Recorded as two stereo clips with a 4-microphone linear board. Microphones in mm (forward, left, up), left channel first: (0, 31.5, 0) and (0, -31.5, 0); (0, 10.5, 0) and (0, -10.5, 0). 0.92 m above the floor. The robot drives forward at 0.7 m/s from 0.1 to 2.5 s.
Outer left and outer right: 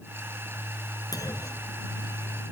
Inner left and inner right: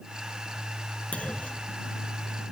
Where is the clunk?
80° left; by 1.8 s 75° left (ahead or behind).